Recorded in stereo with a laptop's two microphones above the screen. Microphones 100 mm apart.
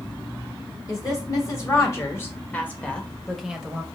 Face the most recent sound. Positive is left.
turn(degrees=-15)  # may be behind; listen again after turning